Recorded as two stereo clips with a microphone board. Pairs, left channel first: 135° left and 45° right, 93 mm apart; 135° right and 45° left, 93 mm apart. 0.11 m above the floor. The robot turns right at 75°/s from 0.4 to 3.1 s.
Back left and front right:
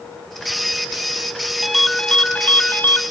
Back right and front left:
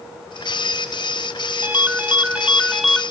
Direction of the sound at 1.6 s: 40° left.